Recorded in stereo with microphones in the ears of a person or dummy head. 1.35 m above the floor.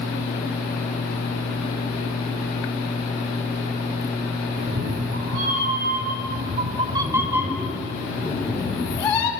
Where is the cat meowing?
80° right, 4 m; by 9.3 s 35° left (ahead or behind), 4.5 m.